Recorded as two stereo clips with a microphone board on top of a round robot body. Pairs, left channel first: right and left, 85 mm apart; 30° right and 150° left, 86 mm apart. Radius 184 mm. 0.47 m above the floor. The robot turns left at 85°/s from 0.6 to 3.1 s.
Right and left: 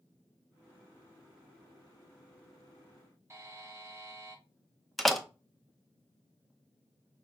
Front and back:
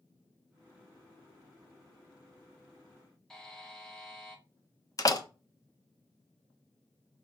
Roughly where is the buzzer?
Ahead left.